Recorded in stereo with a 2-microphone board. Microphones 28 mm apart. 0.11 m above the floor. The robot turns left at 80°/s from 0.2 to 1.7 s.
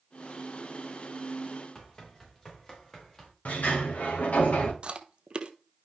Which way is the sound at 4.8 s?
35° right (ahead or behind).